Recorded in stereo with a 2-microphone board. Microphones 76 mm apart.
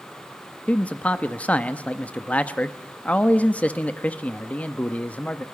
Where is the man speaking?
20° left (ahead or behind), 0.8 m.